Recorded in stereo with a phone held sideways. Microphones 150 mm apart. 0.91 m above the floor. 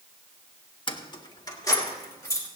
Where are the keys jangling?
35° left (ahead or behind), 0.9 m; by 2.5 s 20° left (ahead or behind), 3 m.